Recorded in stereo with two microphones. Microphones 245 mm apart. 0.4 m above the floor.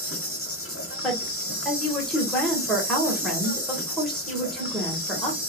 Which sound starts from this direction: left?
An insect, at 0.0 s.